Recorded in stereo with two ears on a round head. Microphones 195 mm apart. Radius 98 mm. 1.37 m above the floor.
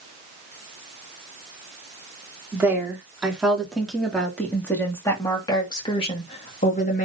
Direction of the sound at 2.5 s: 10° right (ahead or behind).